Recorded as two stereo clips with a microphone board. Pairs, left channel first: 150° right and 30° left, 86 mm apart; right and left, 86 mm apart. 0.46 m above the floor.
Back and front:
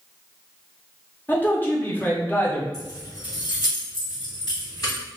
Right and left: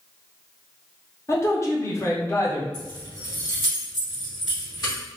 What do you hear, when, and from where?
1.3 s a man speaking: 105° right, 0.8 m
2.7 s keys jangling: 120° right, 1.6 m